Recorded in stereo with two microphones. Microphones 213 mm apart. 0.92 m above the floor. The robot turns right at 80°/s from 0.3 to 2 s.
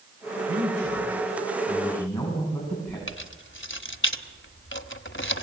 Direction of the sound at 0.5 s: 110° right.